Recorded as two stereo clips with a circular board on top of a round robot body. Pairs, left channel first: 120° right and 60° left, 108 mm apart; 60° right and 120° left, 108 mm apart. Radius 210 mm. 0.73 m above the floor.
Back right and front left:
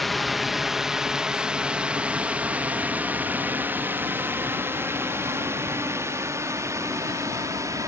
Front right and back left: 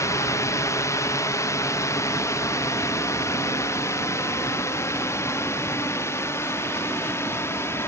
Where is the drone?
30° right; by 7.9 s 5° left.